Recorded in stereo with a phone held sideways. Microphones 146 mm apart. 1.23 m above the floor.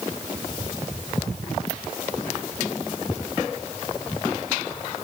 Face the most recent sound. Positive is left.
No sound to turn to.